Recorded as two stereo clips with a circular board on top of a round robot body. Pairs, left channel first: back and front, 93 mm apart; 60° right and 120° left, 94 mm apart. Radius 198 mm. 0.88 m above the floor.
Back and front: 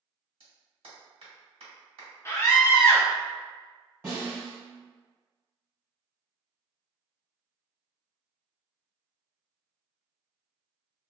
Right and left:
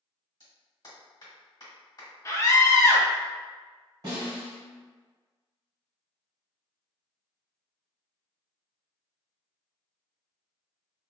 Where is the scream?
120° right, 0.8 m.